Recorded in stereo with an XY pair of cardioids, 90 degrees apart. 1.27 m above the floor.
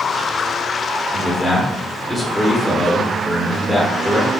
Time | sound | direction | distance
1.1 | a man speaking | 15° left | 1.0 m